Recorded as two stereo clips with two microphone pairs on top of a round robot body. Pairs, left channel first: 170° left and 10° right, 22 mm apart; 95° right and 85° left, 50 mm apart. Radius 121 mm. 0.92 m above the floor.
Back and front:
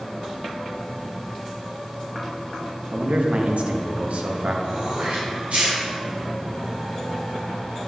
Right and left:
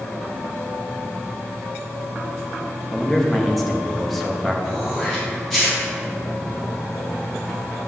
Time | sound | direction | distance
2.9 | a man speaking | 10° right | 1.1 m
4.6 | throat clearing | 5° right | 2.5 m